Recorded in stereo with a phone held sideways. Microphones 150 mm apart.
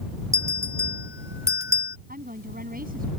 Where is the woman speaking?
75° right (ahead or behind).